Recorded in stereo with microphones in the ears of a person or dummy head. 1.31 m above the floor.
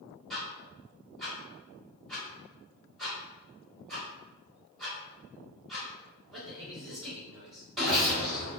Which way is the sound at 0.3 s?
5° left (ahead or behind).